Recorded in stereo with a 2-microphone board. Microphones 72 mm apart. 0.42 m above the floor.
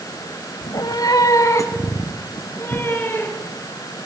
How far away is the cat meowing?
About 1.1 m.